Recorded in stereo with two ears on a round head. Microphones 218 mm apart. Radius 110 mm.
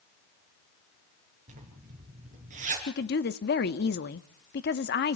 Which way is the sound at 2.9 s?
40° left (ahead or behind).